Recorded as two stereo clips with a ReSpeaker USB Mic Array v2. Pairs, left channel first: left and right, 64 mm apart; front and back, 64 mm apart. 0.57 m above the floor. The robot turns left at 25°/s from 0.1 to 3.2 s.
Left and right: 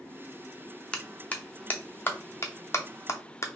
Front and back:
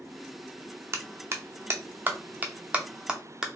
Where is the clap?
160° left, 0.6 m; by 3.5 s 105° left, 0.6 m.